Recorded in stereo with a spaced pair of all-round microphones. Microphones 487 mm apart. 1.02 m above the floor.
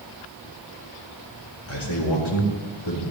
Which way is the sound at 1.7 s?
70° left (ahead or behind).